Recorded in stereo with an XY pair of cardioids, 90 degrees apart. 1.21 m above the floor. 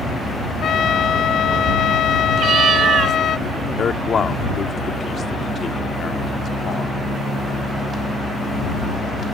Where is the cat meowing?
65° right.